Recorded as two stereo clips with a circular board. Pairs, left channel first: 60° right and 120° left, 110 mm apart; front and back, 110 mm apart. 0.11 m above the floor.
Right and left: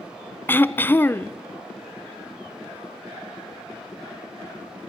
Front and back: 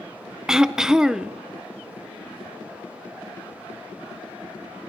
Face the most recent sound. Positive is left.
turn(degrees=-100)